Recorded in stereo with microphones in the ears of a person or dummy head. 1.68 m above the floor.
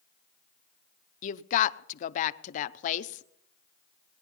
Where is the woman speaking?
45° left (ahead or behind), 0.7 m.